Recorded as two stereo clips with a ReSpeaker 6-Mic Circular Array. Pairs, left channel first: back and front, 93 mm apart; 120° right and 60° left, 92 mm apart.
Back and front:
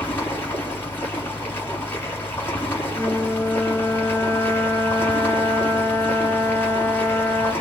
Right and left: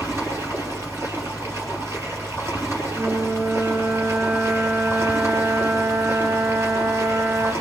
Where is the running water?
115° left, 3.5 m.